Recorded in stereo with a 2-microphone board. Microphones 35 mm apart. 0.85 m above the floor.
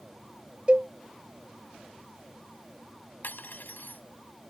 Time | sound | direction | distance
0.7 | a cowbell | 30° right (ahead or behind) | ?
3.2 | cutlery clinking | 60° left (ahead or behind) | ?